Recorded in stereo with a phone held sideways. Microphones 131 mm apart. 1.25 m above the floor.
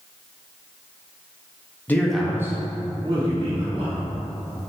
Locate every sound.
1.9 s a man speaking: 15° left (ahead or behind), 0.5 m; by 4.0 s 60° right (ahead or behind), 1.1 m